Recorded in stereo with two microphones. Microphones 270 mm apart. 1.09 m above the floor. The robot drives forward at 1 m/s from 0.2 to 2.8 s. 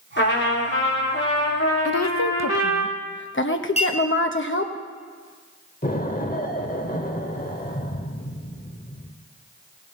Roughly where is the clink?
Left.